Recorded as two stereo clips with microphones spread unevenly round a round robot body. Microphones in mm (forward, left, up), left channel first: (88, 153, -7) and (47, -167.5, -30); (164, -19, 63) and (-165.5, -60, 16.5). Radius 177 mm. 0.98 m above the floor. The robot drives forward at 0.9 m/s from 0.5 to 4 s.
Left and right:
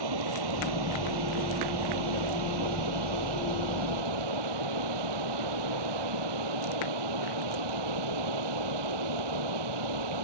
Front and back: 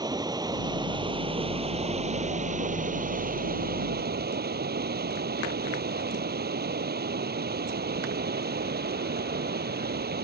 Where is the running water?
95° right; by 10.3 s 110° right.